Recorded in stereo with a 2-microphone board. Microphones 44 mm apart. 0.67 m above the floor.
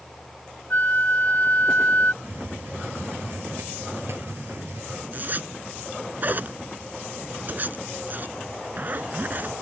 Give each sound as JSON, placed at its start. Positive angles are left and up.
{"t": 0.7, "sound": "a flute", "side_deg": 45}
{"t": 2.2, "sound": "a hiss", "side_deg": -55}
{"t": 5.1, "sound": "a zipper", "side_deg": -40}